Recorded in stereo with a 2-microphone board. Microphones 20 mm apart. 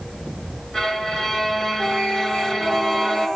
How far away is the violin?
About 2.5 m.